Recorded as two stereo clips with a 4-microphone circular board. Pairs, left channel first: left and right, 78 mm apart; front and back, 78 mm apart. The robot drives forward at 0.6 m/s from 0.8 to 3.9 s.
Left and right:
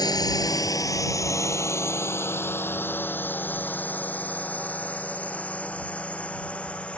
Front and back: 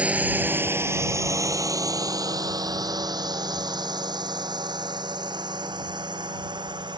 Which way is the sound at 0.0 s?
110° left.